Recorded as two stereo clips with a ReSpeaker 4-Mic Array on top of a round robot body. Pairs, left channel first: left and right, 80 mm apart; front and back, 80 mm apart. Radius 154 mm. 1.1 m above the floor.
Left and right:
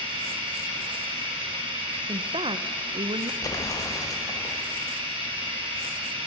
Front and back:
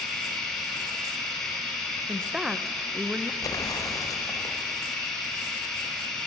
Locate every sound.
0.0 s running water: 85° right, 3.5 m
2.1 s a woman speaking: 95° right, 0.8 m
3.4 s an explosion: 45° left, 2 m